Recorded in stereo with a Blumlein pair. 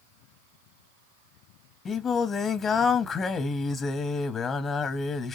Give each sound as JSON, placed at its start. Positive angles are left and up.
{"t": 1.9, "sound": "singing", "azimuth_deg": 20, "distance_m": 0.7}